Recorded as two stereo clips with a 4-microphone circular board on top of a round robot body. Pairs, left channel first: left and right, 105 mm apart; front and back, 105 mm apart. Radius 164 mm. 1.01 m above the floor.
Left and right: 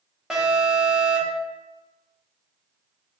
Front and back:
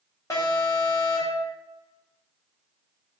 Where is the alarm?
5° right, 1.1 m.